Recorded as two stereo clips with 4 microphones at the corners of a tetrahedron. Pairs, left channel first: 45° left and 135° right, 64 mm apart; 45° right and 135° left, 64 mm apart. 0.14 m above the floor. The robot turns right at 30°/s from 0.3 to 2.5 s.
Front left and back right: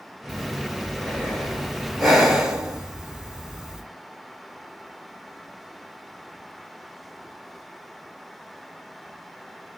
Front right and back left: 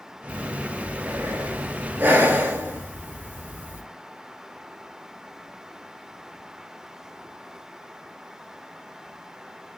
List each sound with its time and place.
0.3 s breathing: 85° left, 0.9 m; by 3.8 s 150° left, 0.9 m